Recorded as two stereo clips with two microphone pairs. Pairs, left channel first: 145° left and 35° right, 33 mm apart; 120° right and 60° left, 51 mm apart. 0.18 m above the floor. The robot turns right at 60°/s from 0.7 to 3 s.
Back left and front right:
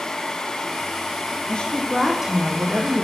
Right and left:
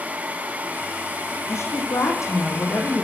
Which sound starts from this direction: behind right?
A woman speaking, at 1.5 s.